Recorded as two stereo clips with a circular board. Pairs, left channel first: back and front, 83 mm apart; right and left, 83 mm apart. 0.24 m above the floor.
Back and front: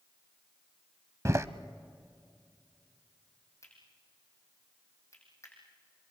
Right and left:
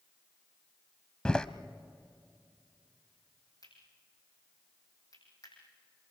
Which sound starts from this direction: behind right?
Cutlery clinking, at 3.6 s.